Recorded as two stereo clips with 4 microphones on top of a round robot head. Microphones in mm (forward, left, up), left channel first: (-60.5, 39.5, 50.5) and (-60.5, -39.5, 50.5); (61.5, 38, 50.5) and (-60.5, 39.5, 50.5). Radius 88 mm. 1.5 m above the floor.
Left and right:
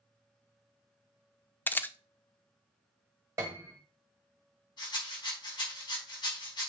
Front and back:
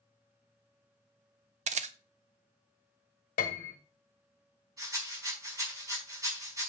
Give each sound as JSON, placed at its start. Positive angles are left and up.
{"t": 1.7, "sound": "a camera shutter", "azimuth_deg": 155, "distance_m": 0.8}
{"t": 3.4, "sound": "a piano", "azimuth_deg": -25, "distance_m": 1.3}
{"t": 4.8, "sound": "a rattle", "azimuth_deg": 115, "distance_m": 5.0}